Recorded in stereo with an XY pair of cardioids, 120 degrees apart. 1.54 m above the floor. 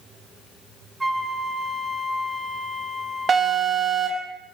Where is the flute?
10° right, 1.2 m.